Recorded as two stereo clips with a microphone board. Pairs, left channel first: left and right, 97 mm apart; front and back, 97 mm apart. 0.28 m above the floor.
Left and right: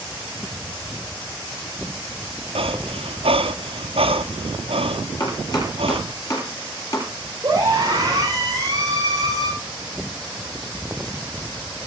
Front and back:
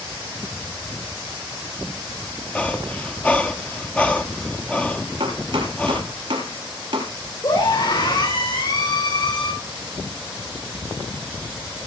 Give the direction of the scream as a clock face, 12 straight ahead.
1 o'clock.